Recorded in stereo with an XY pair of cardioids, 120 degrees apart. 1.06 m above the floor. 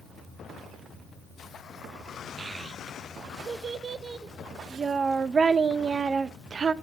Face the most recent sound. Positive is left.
turn(degrees=-30)